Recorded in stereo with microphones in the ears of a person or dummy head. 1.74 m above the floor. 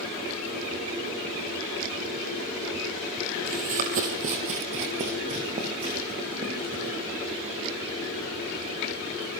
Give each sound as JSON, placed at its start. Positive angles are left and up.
{"t": 3.5, "sound": "running footsteps", "side_deg": -40, "distance_m": 2.5}